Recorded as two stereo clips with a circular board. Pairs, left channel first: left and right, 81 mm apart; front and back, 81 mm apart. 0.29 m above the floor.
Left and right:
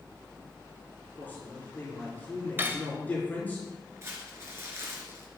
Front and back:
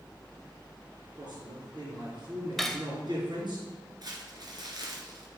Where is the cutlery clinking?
85° right, 0.6 m.